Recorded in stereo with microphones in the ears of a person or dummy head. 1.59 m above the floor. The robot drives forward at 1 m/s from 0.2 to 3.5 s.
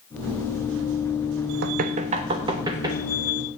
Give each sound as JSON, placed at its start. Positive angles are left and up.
{"t": 1.6, "sound": "knocking", "side_deg": -55, "distance_m": 0.8}